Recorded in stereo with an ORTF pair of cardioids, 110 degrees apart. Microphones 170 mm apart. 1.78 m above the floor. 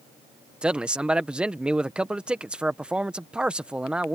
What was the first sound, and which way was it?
A man speaking, 5° right.